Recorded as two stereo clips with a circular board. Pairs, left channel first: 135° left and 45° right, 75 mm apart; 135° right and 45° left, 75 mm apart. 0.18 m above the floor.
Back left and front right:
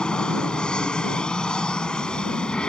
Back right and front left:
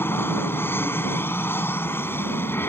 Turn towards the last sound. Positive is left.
turn(degrees=-155)